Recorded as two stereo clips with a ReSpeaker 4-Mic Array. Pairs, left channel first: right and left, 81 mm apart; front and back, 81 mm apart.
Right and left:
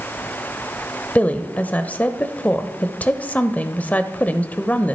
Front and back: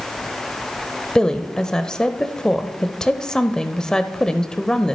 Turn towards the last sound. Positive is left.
turn(degrees=-65)